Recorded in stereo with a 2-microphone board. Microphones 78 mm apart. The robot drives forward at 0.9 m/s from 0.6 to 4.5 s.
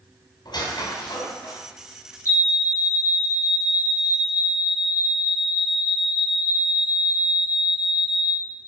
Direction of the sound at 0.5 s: 60° left (ahead or behind).